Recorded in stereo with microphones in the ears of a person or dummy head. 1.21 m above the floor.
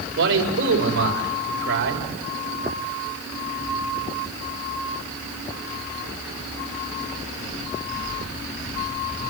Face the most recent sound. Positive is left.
turn(degrees=-70)  # may be behind; listen again after turning